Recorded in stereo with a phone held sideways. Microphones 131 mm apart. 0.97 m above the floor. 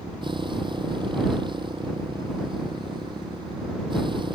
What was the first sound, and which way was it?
A motorcycle, 35° right (ahead or behind).